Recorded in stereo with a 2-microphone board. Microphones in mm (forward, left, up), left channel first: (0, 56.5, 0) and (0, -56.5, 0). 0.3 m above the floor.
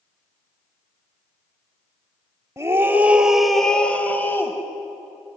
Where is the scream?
25° right (ahead or behind), 1.3 m; by 4.6 s 20° left (ahead or behind), 1.9 m.